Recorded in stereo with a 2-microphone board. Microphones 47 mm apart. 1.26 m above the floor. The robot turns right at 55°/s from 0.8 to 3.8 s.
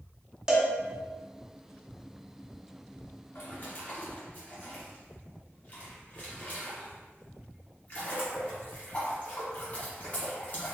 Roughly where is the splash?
Left.